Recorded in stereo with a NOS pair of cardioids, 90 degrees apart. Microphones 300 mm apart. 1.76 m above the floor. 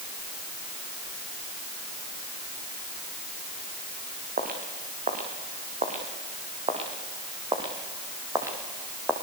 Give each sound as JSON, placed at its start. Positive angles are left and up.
{"t": 4.4, "sound": "footsteps", "azimuth_deg": -30, "distance_m": 7.0}